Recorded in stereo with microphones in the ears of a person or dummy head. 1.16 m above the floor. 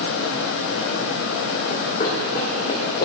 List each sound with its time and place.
1.7 s running footsteps: 40° left (ahead or behind), 2.5 m